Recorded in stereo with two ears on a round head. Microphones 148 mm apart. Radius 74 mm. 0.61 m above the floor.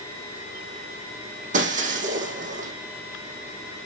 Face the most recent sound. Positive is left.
turn(degrees=-50)  # may be behind; listen again after turning